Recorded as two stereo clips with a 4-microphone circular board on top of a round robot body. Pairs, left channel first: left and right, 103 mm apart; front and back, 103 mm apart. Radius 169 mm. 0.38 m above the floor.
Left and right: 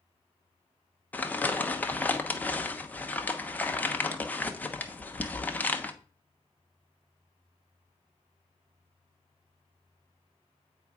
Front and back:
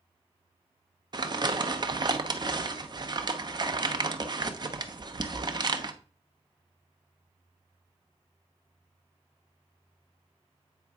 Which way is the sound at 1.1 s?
160° left.